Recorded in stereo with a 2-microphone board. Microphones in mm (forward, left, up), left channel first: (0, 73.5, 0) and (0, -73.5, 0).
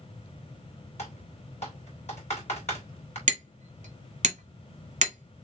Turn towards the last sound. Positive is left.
turn(degrees=-55)  # may be behind; listen again after turning